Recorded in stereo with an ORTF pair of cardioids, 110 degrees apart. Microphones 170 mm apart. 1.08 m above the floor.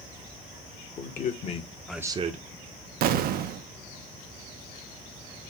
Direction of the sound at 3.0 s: 60° right.